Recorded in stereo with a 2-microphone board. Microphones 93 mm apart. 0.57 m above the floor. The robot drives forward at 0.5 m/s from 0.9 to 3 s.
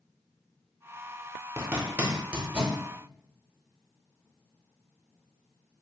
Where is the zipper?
25° right (ahead or behind), 0.5 m; by 2.8 s 15° right (ahead or behind), 1.1 m.